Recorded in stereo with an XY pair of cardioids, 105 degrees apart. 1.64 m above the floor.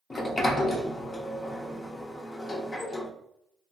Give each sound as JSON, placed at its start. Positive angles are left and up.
{"t": 0.1, "sound": "a sliding door", "azimuth_deg": 35, "distance_m": 0.5}